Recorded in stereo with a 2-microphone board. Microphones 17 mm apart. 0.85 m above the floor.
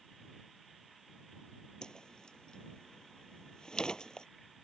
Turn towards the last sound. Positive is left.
turn(degrees=45)  # may be behind; listen again after turning